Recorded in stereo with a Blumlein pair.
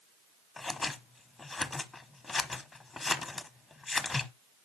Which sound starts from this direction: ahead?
Scissors, at 0.6 s.